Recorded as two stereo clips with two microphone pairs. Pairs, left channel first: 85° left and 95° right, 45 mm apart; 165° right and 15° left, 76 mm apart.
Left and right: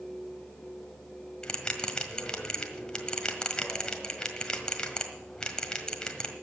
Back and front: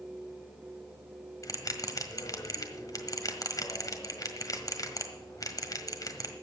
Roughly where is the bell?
Behind left.